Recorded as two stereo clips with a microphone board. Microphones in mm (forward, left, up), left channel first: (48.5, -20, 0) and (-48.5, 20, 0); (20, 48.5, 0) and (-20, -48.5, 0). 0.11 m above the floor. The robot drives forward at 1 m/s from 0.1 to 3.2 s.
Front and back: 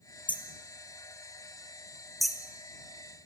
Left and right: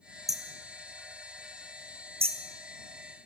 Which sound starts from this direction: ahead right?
Hammering, at 0.3 s.